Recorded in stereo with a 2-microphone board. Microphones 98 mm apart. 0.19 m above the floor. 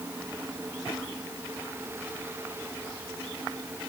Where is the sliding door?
No sliding door in this recording.